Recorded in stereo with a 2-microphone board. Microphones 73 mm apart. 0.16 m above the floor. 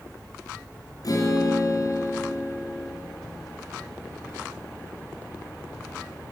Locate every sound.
1.0 s a guitar: 55° left (ahead or behind), 2.5 m